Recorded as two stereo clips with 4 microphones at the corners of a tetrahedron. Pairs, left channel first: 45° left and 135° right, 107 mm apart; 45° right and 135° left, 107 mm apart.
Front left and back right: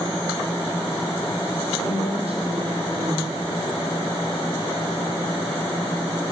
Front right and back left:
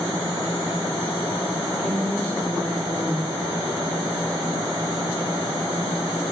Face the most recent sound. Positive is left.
turn(degrees=-125)